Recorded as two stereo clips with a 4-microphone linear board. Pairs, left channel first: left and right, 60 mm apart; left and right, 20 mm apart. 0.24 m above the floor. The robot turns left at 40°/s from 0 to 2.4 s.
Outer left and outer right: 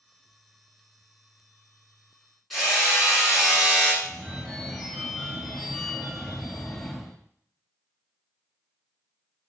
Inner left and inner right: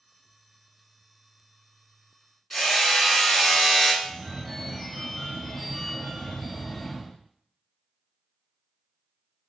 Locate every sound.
2.5 s hammering: centre (ahead or behind), 2.5 m
4.0 s a phone ringing: centre (ahead or behind), 1.0 m